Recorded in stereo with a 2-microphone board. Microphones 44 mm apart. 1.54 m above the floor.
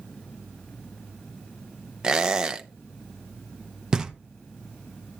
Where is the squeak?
20° right (ahead or behind), 0.6 m.